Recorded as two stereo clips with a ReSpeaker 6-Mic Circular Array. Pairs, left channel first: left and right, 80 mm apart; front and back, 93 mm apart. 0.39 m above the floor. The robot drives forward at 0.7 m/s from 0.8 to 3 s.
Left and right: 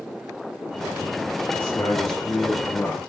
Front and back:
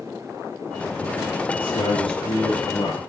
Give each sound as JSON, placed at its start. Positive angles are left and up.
{"t": 1.6, "sound": "a man speaking", "azimuth_deg": 25, "distance_m": 8.0}